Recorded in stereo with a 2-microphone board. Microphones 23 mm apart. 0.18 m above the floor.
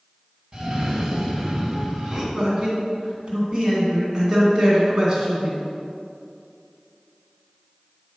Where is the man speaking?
35° right (ahead or behind), 1.9 m.